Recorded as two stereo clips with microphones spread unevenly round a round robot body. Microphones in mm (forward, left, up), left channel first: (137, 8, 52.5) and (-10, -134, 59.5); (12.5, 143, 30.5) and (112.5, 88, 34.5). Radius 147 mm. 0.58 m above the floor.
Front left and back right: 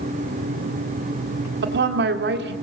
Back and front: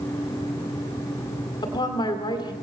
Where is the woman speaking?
155° right, 2 m.